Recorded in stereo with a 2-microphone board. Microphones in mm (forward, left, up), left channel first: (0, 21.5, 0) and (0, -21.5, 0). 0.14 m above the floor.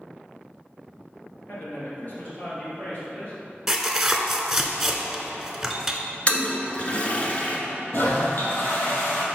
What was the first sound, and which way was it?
A man speaking, 45° left (ahead or behind).